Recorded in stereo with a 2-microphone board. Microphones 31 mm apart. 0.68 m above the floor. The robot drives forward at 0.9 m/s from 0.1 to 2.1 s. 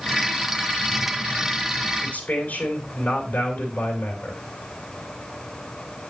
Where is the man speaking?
65° left (ahead or behind), 3.5 m.